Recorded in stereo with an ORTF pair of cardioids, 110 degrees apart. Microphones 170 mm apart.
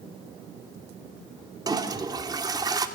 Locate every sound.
1.7 s a toilet flushing: 25° right, 2.5 m